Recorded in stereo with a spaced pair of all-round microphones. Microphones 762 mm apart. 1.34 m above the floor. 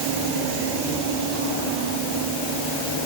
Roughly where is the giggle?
No giggle in this recording.